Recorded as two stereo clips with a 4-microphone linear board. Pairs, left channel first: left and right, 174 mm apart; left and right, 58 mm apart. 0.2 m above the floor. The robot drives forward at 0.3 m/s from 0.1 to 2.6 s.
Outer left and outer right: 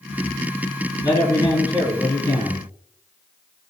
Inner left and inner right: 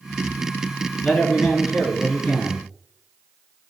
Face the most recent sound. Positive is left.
turn(degrees=20)  # may be behind; listen again after turning